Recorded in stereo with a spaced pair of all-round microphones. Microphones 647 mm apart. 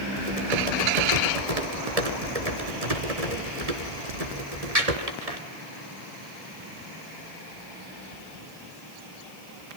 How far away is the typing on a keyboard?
About 3 m.